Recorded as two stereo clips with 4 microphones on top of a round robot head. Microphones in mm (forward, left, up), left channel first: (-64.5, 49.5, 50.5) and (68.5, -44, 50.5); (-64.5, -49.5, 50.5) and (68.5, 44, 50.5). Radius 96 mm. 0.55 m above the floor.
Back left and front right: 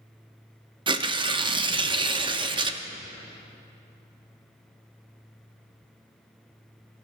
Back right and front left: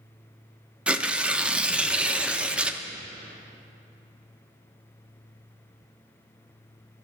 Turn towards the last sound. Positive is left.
turn(degrees=-40)